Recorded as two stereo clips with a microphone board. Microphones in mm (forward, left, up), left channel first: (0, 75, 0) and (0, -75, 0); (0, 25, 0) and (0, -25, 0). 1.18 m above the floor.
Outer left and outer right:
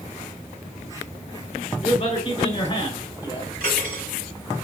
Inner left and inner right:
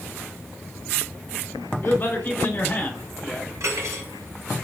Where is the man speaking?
40° left (ahead or behind), 3 m; by 3.5 s 30° left (ahead or behind), 4 m.